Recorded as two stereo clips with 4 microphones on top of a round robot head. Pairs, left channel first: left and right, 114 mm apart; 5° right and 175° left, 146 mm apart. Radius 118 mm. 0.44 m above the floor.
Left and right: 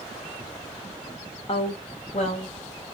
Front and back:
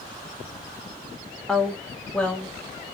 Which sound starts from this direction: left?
A woman speaking, at 1.5 s.